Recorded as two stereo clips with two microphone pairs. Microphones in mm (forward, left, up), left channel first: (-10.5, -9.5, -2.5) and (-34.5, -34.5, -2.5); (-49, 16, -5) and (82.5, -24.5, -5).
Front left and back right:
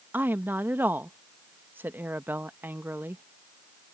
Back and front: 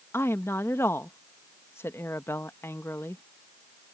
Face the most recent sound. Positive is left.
turn(degrees=-125)